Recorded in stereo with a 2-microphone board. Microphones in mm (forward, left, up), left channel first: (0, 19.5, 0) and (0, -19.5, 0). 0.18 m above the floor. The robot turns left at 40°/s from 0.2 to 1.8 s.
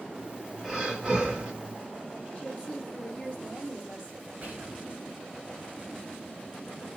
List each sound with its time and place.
0.6 s breathing: 10° right, 2.0 m; by 1.5 s 45° right, 2.0 m
2.4 s a woman speaking: 25° left (ahead or behind), 3 m
4.4 s whispering: 35° right (ahead or behind), 2.5 m